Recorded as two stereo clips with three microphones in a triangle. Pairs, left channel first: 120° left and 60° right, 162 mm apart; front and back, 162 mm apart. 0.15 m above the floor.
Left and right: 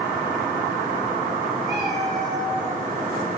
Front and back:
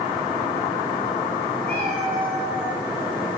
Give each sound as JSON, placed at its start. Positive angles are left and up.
{"t": 1.6, "sound": "a cat meowing", "azimuth_deg": -130, "distance_m": 2.0}